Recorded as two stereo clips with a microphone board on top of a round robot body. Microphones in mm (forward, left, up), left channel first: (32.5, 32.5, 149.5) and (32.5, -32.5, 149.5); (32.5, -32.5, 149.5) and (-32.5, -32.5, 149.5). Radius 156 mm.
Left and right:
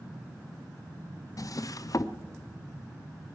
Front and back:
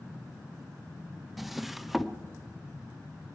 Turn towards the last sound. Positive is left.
turn(degrees=95)